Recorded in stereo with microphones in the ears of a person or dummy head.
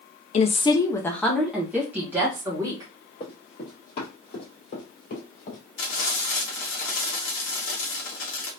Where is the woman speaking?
30° left (ahead or behind), 0.5 m; by 2.9 s 20° right (ahead or behind), 1.5 m.